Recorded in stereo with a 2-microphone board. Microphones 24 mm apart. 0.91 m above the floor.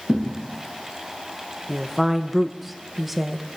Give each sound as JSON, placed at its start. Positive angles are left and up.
{"t": 0.1, "sound": "a thud", "side_deg": -65, "distance_m": 2.5}
{"t": 1.7, "sound": "a woman speaking", "side_deg": -10, "distance_m": 0.8}